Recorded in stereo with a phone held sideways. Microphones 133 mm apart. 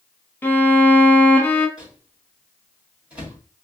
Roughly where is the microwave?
Centre.